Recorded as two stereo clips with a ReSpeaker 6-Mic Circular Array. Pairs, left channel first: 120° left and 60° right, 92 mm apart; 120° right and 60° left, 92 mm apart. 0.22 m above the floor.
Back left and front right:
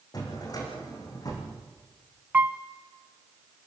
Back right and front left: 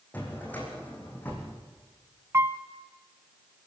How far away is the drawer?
About 6 m.